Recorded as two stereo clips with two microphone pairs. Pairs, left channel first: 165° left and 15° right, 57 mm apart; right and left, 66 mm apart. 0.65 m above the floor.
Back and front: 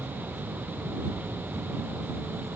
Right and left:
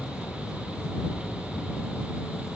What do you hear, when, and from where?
0.0 s an insect: 45° right